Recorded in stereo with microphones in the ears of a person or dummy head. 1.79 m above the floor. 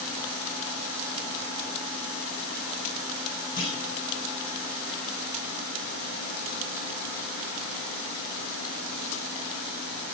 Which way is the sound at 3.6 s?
25° left (ahead or behind).